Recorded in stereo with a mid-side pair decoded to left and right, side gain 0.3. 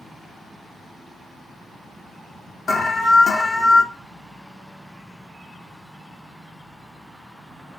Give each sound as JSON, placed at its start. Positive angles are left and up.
{"t": 2.7, "sound": "an alarm", "azimuth_deg": 60, "distance_m": 0.7}